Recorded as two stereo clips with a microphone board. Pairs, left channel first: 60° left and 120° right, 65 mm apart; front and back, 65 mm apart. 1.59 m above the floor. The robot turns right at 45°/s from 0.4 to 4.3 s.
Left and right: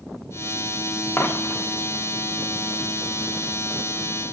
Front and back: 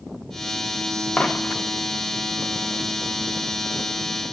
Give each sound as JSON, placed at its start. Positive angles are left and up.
{"t": 1.2, "sound": "a dropped coin", "azimuth_deg": 70, "distance_m": 1.2}